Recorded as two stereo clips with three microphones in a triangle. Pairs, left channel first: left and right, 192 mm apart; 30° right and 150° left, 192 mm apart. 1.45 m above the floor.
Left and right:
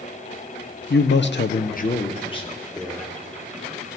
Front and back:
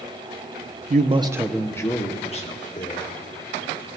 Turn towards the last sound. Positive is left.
turn(degrees=15)